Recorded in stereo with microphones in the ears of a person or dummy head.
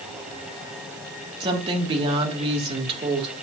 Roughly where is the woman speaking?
Right.